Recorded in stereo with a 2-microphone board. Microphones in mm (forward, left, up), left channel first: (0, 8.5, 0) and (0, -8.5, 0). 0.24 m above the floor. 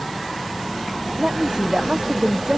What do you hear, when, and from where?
1.2 s a woman speaking: 50° right (ahead or behind); by 2.6 s 45° right (ahead or behind)